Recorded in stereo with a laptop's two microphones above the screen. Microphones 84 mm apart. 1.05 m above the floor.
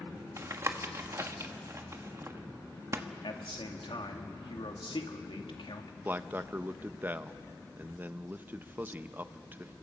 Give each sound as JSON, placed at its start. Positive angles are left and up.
{"t": 0.4, "sound": "tapping", "side_deg": -35, "distance_m": 1.3}
{"t": 3.2, "sound": "a man speaking", "side_deg": 80, "distance_m": 2.0}
{"t": 6.0, "sound": "a man speaking", "side_deg": -25, "distance_m": 0.8}